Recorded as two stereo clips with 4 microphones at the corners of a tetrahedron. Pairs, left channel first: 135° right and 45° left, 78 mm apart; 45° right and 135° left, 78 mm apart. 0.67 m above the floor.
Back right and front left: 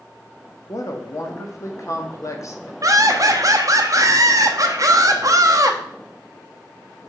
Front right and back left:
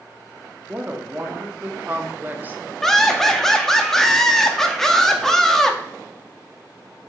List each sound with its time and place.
0.7 s a woman speaking: 165° right, 1.0 m
2.8 s laughter: 35° left, 0.9 m